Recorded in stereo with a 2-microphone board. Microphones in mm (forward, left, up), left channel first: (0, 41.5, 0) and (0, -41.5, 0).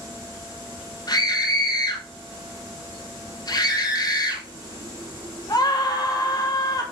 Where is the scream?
45° left (ahead or behind), 4 m.